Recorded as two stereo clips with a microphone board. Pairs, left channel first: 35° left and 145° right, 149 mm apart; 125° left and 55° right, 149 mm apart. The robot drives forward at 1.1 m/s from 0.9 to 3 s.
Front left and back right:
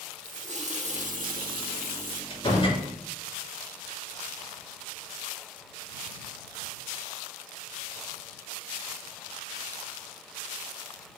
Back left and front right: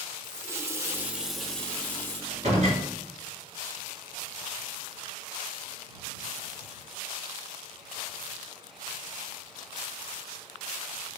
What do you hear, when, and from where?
0.2 s a running tap: 125° right, 1.0 m; by 2.2 s 160° right, 2 m
2.3 s a door slam: 20° right, 5 m